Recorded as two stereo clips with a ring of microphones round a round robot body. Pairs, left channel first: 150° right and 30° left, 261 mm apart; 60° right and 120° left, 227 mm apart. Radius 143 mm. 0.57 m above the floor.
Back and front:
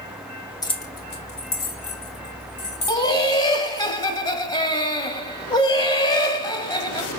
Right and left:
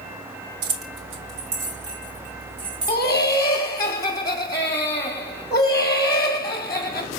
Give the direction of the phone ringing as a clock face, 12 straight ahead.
I don't hear a phone ringing.